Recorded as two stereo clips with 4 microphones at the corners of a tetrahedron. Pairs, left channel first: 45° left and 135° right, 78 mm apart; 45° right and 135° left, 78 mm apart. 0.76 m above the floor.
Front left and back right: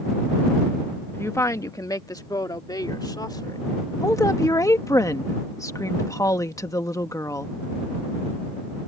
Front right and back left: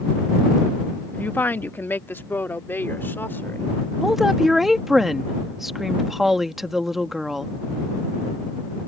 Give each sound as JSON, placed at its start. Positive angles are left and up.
{"t": 1.1, "sound": "a woman speaking", "azimuth_deg": 5}
{"t": 4.0, "sound": "a woman speaking", "azimuth_deg": 50}